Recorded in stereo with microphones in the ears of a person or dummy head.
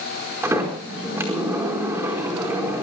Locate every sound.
0.4 s a sliding door: 15° right (ahead or behind), 4.5 m